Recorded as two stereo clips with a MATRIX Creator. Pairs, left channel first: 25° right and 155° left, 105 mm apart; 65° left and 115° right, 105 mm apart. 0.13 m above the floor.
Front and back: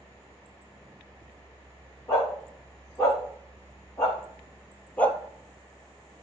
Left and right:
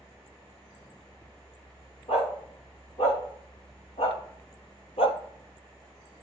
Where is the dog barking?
40° left, 5 m; by 5.2 s 55° left, 1.0 m.